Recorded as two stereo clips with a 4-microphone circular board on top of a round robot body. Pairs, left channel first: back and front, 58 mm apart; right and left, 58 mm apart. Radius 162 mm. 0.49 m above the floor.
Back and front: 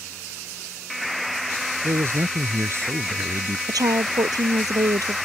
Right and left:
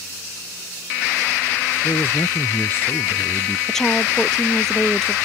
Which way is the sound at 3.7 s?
10° right.